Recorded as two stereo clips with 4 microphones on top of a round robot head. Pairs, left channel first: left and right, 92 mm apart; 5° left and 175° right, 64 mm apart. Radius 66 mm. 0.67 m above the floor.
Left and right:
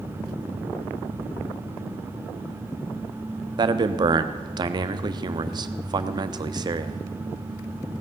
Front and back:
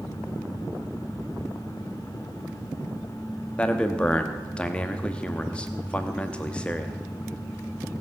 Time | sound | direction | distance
3.6 | a man speaking | 65° right | 0.8 m